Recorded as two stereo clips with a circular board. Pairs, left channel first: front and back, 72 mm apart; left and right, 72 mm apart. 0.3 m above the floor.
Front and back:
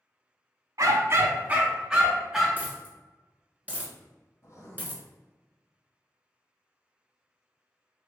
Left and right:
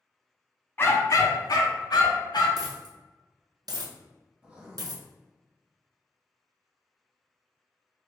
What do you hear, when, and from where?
0.8 s a dog barking: 150° left, 0.5 m; by 2.5 s 90° left, 1.1 m
2.6 s a dropped coin: 115° right, 1.0 m
4.4 s writing: 15° right, 1.2 m